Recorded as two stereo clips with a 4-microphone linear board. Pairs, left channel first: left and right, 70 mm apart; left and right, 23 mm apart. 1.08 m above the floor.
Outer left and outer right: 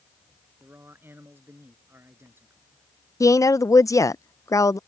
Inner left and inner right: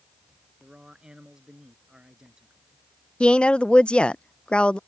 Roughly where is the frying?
I don't hear frying.